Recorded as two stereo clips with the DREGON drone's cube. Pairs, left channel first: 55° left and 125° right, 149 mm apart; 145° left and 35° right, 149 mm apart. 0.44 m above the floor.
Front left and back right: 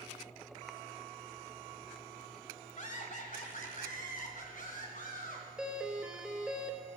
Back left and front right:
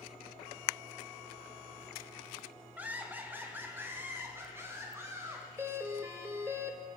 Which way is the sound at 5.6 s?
55° right.